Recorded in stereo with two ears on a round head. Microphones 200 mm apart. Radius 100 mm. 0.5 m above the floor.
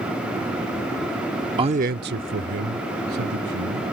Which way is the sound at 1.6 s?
20° right (ahead or behind).